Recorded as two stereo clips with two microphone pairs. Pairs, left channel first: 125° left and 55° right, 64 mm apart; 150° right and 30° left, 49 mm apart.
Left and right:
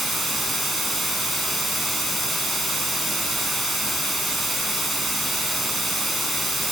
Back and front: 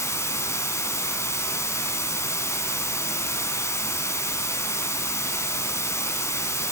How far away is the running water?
About 3.5 m.